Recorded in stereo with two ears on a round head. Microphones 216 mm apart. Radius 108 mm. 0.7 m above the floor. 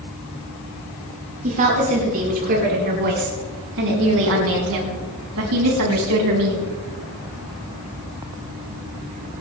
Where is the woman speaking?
35° right (ahead or behind), 7.5 m; by 6.7 s 80° right, 5.5 m.